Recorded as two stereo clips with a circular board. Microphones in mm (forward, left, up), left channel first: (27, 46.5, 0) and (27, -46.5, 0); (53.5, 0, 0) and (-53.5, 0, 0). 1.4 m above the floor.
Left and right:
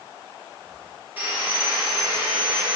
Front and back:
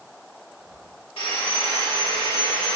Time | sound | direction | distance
1.2 | sawing | 20° right | 2.5 m